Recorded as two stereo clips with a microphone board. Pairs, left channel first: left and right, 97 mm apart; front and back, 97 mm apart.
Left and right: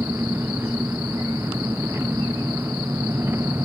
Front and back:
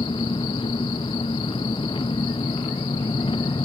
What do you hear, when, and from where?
0.0 s an engine running: 25° right